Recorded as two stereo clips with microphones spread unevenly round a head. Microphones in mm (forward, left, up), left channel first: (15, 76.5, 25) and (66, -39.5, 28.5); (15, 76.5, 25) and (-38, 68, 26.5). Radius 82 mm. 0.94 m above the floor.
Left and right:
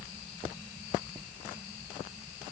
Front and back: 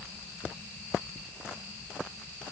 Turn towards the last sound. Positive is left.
No sound to turn to.